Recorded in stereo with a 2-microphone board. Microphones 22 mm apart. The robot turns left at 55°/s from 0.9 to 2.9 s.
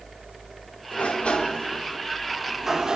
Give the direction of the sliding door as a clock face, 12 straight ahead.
10 o'clock.